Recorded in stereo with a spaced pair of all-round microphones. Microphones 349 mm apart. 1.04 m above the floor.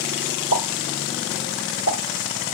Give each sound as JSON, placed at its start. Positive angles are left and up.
{"t": 0.5, "sound": "a pop", "side_deg": 60, "distance_m": 3.0}